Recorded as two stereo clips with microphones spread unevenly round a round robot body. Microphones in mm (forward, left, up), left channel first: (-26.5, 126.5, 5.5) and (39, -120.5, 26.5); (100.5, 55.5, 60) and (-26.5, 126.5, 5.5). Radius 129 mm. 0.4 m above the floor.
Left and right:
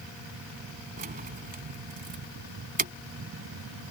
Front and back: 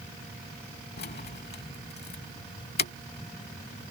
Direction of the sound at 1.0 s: 15° right.